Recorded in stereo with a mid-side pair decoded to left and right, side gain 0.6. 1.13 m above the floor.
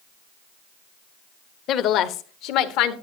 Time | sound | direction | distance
1.7 | a woman speaking | 60° left | 1.1 m